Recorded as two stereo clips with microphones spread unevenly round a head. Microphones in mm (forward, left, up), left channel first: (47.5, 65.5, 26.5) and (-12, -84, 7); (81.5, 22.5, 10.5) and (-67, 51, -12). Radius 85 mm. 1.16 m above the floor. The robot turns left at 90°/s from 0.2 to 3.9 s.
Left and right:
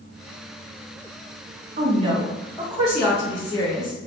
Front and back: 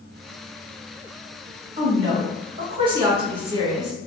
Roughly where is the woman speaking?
Behind right.